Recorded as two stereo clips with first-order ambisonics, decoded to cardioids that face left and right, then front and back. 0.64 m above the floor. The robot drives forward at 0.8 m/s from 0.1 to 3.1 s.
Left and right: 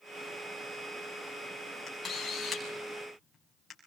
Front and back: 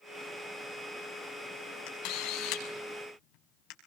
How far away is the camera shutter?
About 7 m.